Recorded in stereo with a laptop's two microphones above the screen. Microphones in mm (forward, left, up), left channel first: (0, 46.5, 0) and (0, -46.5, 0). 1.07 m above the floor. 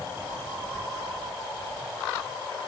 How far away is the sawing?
I don't hear sawing.